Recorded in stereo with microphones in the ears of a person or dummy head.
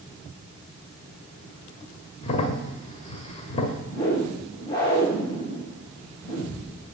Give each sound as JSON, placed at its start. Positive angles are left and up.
{"t": 2.2, "sound": "a crack", "side_deg": 30, "distance_m": 1.4}
{"t": 3.9, "sound": "a whoosh", "side_deg": 25, "distance_m": 8.0}